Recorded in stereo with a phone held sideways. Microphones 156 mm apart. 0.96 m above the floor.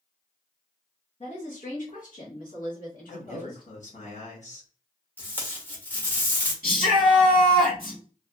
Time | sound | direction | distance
1.2 | a woman speaking | 45° left (ahead or behind) | 0.7 m
3.1 | a man speaking | 55° left (ahead or behind) | 1.3 m
5.2 | tape being pulled | 10° left (ahead or behind) | 0.8 m
6.6 | a shout | 75° left (ahead or behind) | 1.9 m